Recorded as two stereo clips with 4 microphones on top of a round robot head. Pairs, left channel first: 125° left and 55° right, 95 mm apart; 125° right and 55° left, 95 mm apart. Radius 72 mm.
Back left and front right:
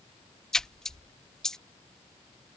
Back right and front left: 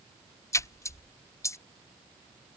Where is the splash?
150° right.